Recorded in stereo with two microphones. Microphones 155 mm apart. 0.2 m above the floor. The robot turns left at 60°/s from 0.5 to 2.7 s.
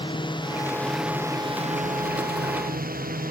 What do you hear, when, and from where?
0.0 s a drone: 30° left (ahead or behind); by 3.3 s 70° right (ahead or behind)